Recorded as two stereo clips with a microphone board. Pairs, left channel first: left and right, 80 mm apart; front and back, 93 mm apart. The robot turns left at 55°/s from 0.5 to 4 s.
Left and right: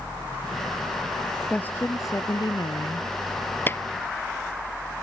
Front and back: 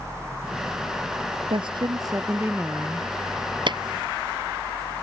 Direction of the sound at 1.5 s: 165° left.